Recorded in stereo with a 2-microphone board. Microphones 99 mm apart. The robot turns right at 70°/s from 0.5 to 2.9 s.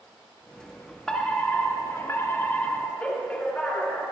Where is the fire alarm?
10° left (ahead or behind), 1.9 m; by 4.1 s 15° left (ahead or behind), 1.9 m.